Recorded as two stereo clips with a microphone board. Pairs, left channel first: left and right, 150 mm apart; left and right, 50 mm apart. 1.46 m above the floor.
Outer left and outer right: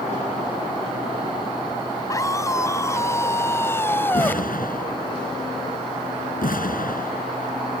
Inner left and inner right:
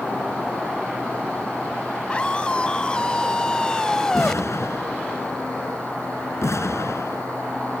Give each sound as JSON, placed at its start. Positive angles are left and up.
{"t": 2.1, "sound": "a scream", "side_deg": 25}
{"t": 4.1, "sound": "an explosion", "side_deg": 85}